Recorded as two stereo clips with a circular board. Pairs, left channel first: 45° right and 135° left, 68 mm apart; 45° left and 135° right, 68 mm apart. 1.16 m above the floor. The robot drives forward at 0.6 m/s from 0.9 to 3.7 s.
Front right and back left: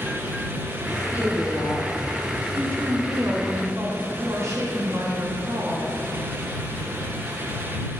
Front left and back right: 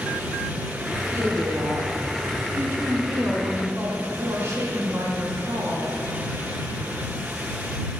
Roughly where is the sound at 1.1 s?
Right.